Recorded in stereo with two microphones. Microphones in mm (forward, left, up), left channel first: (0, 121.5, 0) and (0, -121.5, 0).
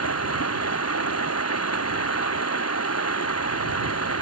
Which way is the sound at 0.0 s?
80° left.